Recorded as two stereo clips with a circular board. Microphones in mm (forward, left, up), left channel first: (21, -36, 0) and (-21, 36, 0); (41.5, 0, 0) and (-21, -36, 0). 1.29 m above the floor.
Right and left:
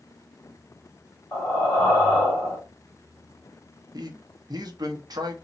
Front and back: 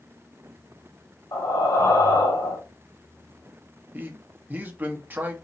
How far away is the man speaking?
About 0.8 m.